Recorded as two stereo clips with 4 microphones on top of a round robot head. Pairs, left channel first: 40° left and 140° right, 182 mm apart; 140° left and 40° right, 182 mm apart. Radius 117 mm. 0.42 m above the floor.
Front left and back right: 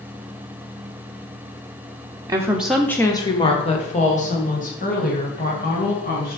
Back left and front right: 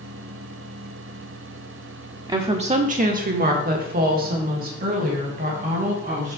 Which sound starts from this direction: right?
A woman speaking, at 2.3 s.